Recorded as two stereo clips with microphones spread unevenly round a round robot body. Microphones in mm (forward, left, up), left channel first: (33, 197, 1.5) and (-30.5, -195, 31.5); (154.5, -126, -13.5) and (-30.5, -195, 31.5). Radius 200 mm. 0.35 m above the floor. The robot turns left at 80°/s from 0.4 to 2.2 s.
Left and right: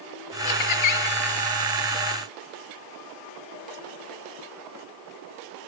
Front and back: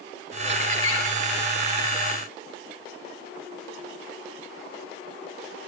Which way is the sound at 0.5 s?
95° left.